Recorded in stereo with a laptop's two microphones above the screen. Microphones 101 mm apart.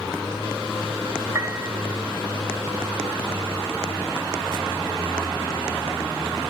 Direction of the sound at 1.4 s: 30° right (ahead or behind).